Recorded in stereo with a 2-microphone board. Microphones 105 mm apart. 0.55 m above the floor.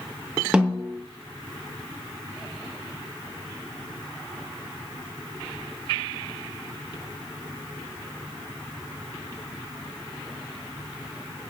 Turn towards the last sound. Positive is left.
turn(degrees=-10)  # may be behind; listen again after turning